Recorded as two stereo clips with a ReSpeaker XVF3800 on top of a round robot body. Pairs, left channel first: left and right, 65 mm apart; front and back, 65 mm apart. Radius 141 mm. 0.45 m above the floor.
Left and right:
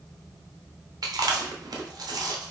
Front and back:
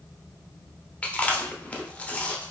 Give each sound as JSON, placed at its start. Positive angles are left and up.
{"t": 1.0, "sound": "chewing", "azimuth_deg": -70, "distance_m": 0.6}